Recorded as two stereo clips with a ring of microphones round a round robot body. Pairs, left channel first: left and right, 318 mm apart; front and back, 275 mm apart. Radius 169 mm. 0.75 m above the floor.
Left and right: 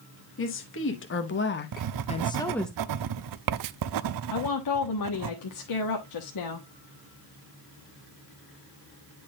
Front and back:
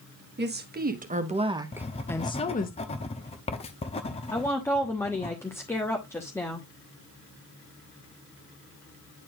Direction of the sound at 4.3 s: 80° left.